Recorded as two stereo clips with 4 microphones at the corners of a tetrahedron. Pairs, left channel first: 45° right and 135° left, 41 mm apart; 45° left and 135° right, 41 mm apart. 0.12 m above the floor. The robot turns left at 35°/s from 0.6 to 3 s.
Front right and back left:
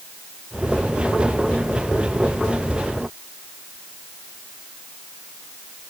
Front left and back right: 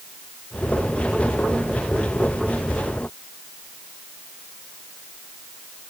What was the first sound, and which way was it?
Only background noise.